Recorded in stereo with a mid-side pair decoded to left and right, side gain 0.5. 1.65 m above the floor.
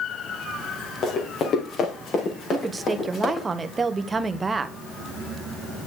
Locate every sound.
1.0 s running footsteps: 55° left, 6 m; by 3.5 s 45° left, 7 m
2.5 s a woman speaking: 30° right, 1.5 m